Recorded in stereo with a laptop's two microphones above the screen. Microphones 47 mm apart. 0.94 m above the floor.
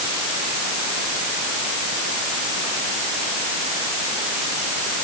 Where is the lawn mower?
No lawn mower in this recording.